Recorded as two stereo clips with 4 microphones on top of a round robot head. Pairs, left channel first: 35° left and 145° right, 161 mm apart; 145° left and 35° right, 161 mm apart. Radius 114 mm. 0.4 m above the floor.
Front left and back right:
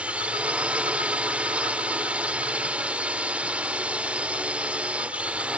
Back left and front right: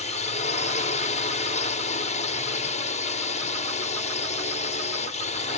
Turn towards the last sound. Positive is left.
turn(degrees=135)